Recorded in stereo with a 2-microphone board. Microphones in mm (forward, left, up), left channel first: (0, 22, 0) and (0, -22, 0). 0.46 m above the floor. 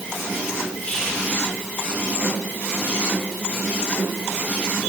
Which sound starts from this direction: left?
Whispering, at 0.8 s.